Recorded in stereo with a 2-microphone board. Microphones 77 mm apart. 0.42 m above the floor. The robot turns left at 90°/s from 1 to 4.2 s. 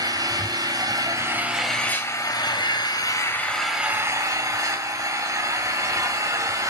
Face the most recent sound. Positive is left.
turn(degrees=-45)